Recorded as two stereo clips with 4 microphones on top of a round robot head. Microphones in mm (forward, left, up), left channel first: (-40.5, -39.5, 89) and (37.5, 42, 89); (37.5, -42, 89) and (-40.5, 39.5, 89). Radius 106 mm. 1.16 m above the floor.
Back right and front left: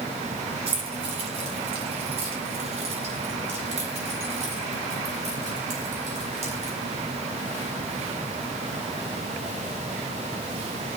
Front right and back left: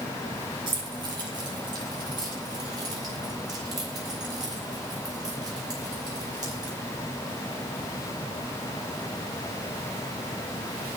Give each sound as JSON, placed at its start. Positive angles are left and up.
{"t": 0.7, "sound": "keys jangling", "azimuth_deg": 85, "distance_m": 6.5}